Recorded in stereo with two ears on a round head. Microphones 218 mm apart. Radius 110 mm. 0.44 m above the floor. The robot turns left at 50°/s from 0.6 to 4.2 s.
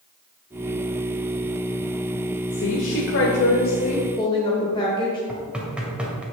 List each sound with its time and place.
2.5 s a woman speaking: 110° left, 1.2 m; by 5.2 s 25° left, 1.2 m
5.3 s knocking: 5° right (ahead or behind), 1.8 m